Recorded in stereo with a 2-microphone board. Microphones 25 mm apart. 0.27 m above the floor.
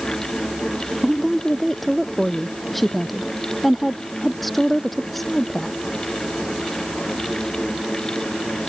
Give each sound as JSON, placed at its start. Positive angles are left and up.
{"t": 1.0, "sound": "a woman speaking", "side_deg": 5}